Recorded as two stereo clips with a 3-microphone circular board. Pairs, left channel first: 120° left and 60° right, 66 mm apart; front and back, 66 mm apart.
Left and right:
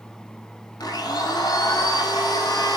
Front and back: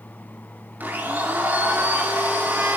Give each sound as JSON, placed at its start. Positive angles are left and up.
{"t": 0.8, "sound": "a blender", "azimuth_deg": 115, "distance_m": 3.0}